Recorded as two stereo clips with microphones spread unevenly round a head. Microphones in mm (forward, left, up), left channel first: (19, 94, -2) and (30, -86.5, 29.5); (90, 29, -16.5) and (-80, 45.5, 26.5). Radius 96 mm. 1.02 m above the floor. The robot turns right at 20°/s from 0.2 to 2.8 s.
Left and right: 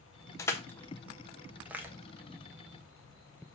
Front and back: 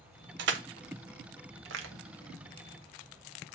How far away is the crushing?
About 1.1 m.